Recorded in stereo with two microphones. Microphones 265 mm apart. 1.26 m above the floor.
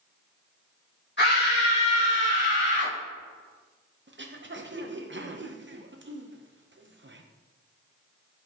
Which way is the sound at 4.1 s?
45° right (ahead or behind).